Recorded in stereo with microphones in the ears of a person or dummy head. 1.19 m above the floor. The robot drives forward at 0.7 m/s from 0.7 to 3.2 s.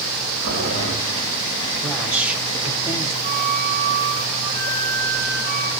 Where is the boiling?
60° right (ahead or behind), 9.5 m; by 0.9 s 65° right (ahead or behind), 9.5 m.